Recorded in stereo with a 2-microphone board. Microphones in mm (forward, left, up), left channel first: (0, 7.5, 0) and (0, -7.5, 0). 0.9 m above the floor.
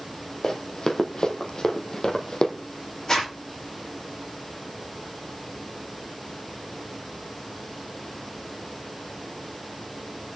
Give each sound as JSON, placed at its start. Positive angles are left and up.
{"t": 0.4, "sound": "running footsteps", "side_deg": 50, "distance_m": 2.0}
{"t": 3.1, "sound": "a zipper", "side_deg": 40, "distance_m": 10.0}